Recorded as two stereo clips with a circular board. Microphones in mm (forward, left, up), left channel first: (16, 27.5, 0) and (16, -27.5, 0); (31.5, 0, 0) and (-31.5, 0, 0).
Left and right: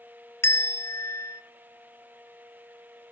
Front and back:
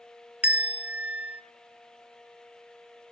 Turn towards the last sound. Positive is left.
turn(degrees=115)